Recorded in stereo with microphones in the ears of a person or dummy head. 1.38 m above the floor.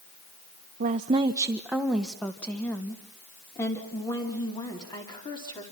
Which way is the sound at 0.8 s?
45° right (ahead or behind).